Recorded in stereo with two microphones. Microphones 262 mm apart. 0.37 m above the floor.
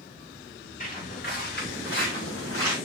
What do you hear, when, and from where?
0.8 s footsteps: 30° left (ahead or behind), 5.5 m; by 2.8 s 55° left (ahead or behind), 4.5 m